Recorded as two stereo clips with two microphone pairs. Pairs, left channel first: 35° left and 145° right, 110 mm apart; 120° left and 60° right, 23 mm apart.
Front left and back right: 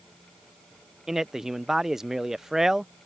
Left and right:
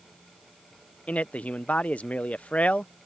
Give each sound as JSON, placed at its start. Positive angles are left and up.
{"t": 1.1, "sound": "a man speaking", "azimuth_deg": 130}